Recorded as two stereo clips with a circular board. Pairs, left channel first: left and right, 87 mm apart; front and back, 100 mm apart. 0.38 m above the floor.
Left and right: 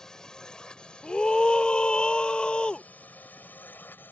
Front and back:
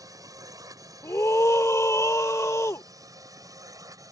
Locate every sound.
0.0 s a drone: 170° left; by 4.1 s 145° left
1.0 s a scream: 20° left